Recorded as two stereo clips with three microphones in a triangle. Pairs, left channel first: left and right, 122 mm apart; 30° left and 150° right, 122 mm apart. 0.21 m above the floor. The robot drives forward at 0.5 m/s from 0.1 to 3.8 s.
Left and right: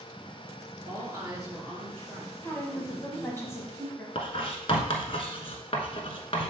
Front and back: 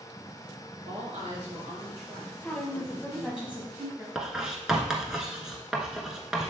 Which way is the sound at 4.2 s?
125° left.